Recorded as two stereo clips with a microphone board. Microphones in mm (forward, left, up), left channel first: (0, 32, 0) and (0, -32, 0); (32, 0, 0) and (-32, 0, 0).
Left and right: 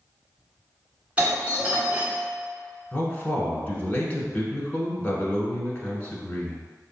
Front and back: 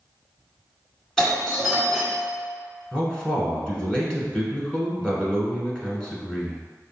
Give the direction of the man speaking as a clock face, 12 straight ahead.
10 o'clock.